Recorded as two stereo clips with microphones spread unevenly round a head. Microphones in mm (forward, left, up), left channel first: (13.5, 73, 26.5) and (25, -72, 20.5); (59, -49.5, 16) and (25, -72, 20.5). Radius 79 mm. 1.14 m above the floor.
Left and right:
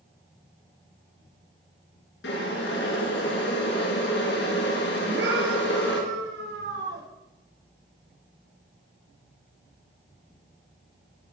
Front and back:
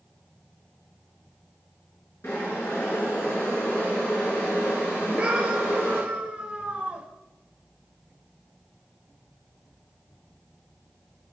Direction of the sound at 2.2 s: 95° left.